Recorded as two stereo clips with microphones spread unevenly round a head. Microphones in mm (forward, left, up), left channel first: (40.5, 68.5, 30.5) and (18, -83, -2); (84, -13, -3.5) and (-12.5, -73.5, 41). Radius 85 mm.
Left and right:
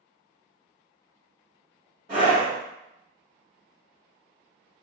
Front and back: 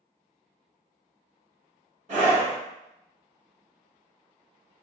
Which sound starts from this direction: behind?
A scream, at 2.1 s.